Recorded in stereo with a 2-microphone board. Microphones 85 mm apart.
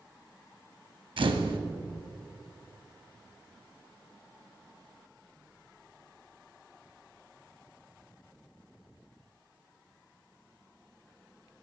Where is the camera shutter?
75° right (ahead or behind), 0.5 m.